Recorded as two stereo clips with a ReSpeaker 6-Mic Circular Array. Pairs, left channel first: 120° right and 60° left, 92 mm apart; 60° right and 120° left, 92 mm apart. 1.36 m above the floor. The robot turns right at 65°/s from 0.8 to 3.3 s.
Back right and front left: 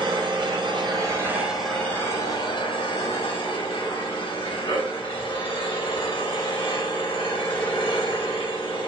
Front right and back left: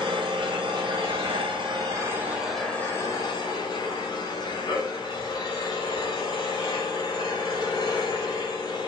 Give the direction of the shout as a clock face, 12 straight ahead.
I don't hear a shout.